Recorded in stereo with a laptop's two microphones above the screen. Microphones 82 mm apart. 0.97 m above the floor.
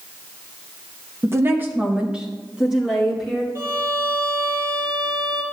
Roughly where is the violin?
Right.